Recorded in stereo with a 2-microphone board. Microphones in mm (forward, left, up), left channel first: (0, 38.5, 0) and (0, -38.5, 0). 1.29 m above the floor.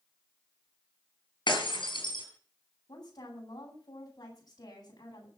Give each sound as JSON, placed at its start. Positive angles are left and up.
{"t": 1.5, "sound": "breaking glass", "side_deg": 75, "distance_m": 6.0}
{"t": 2.9, "sound": "a woman speaking", "side_deg": 50, "distance_m": 9.5}